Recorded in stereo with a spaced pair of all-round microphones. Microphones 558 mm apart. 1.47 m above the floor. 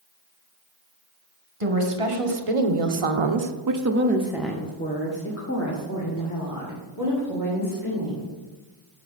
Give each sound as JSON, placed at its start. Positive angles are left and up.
{"t": 1.6, "sound": "a woman speaking", "side_deg": -70, "distance_m": 1.6}